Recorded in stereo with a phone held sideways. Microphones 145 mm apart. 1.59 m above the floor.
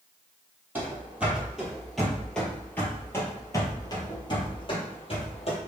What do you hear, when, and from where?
0.8 s running footsteps: 15° right (ahead or behind), 2.0 m; by 5.6 s 40° left (ahead or behind), 2 m